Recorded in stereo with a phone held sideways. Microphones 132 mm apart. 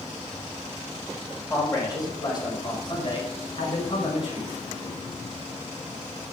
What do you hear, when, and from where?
1.5 s a man speaking: 25° left (ahead or behind), 5 m; by 4.5 s 50° left (ahead or behind), 4.5 m